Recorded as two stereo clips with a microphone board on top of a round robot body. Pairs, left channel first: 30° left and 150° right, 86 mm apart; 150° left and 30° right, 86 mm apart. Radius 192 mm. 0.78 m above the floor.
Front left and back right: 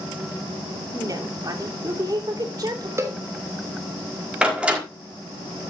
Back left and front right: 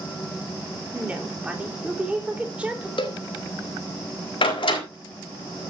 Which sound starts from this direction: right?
A woman speaking, at 0.9 s.